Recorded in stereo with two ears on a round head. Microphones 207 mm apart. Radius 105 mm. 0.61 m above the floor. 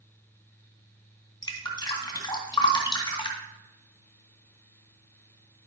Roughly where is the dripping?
Centre.